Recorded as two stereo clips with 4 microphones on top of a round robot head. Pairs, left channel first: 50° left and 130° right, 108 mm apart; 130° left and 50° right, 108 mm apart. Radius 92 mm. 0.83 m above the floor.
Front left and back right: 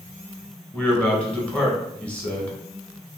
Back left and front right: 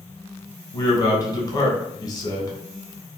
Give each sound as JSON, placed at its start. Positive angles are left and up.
{"t": 0.7, "sound": "a man speaking", "azimuth_deg": 120, "distance_m": 1.1}